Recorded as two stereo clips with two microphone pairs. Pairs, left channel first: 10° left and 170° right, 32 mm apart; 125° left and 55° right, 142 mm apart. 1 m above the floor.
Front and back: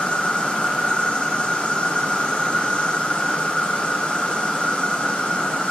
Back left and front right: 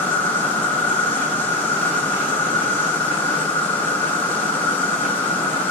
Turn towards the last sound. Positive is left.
turn(degrees=50)